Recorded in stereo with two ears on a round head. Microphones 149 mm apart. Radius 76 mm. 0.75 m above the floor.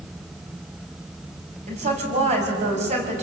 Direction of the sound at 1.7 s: 45° right (ahead or behind).